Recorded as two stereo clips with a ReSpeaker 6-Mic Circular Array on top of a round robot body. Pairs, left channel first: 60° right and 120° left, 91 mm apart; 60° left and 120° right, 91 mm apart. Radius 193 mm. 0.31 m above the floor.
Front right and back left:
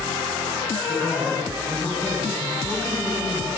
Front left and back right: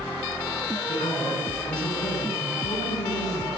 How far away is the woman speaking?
About 6 m.